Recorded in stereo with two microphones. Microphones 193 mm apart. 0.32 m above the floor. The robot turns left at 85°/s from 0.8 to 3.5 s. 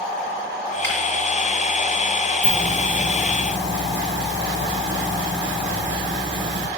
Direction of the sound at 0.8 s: 80° left.